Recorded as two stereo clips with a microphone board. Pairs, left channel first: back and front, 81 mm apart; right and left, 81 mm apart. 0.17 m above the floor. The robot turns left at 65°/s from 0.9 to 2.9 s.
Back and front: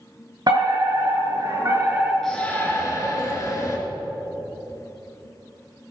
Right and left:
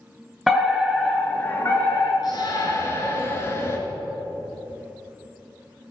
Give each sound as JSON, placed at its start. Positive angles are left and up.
{"t": 0.5, "sound": "a fire alarm", "azimuth_deg": 5, "distance_m": 3.5}
{"t": 2.2, "sound": "a shout", "azimuth_deg": -95, "distance_m": 3.0}